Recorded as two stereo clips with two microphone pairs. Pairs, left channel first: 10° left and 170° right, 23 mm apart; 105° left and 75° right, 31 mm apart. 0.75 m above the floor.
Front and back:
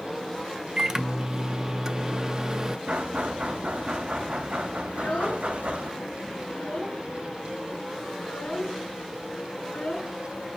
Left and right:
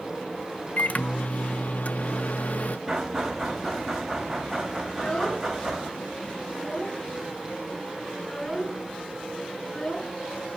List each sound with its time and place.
0.8 s a microwave: 135° left, 0.5 m
2.9 s knocking: 160° right, 3 m
4.9 s a child speaking: 40° left, 5.5 m